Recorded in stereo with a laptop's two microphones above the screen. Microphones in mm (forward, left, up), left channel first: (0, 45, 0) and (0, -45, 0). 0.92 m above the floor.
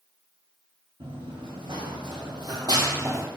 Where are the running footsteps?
70° right (ahead or behind), 3 m; by 3.3 s 25° right (ahead or behind), 1.3 m.